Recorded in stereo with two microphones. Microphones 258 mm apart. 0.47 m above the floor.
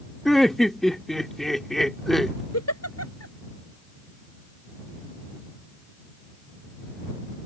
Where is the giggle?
75° left (ahead or behind).